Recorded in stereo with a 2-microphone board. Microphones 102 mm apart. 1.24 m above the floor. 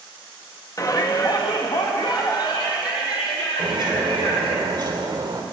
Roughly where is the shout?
Left.